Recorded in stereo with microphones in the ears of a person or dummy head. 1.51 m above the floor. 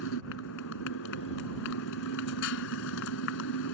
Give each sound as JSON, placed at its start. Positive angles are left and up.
{"t": 0.0, "sound": "a motorcycle", "side_deg": 70}